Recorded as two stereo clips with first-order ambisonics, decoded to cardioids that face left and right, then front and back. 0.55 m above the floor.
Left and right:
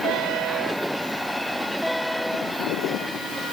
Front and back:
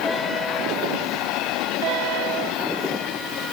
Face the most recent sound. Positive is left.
No sound to turn to.